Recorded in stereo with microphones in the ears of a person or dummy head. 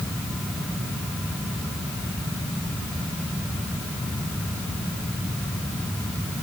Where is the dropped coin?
No dropped coin in this recording.